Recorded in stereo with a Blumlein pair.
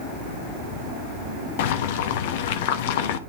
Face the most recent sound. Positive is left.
turn(degrees=50)